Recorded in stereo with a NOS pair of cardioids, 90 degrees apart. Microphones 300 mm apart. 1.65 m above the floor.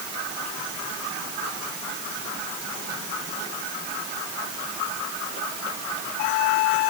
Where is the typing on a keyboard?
I don't hear typing on a keyboard.